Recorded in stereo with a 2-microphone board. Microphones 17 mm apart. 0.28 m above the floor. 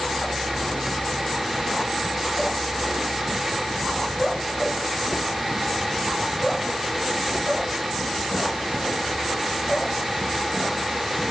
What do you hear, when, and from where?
Only background noise.